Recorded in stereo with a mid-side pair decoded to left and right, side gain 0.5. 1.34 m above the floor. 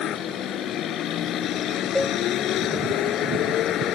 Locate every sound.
0.0 s a vehicle: 65° left
1.9 s a cowbell: 10° left